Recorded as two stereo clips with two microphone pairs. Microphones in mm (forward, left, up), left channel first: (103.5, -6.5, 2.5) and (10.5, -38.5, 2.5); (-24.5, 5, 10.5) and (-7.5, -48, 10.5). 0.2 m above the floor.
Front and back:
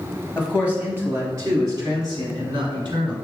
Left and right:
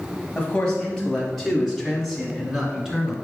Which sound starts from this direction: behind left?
A man speaking, at 0.3 s.